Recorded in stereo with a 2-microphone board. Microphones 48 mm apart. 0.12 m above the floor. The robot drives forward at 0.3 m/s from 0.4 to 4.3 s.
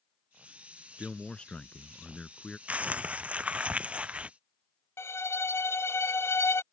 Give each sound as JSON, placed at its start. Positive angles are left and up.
{"t": 1.0, "sound": "a man speaking", "side_deg": 20}
{"t": 2.7, "sound": "crumpling", "side_deg": -30}
{"t": 5.0, "sound": "a violin", "side_deg": 70}